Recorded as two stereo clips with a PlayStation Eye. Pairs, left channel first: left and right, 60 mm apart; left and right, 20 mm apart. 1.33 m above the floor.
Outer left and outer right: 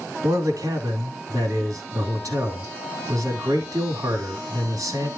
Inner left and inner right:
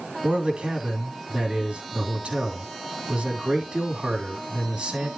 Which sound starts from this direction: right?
A man speaking, at 0.2 s.